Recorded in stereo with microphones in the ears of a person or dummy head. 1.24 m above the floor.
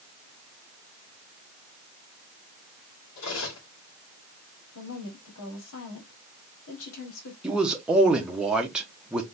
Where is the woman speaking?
80° left, 2.5 m.